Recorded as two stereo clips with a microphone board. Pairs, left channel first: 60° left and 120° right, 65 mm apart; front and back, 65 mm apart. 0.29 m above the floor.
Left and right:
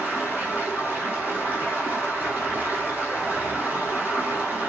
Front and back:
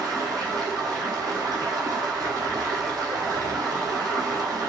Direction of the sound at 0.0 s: Straight behind.